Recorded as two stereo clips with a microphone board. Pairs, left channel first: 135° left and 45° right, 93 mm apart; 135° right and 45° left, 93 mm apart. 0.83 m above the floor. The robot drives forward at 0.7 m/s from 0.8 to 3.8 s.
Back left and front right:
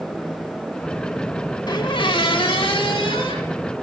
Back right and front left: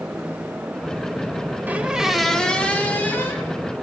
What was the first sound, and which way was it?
A squeak, 110° left.